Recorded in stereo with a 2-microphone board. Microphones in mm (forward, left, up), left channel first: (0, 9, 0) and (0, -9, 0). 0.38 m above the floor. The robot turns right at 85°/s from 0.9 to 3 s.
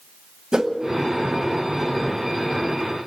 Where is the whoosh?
50° right (ahead or behind), 1.2 m.